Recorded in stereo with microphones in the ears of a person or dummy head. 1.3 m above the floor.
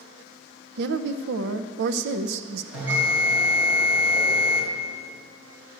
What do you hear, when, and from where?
0.8 s a woman speaking: 60° right (ahead or behind), 0.6 m
2.7 s a bell: 5° right (ahead or behind), 6.5 m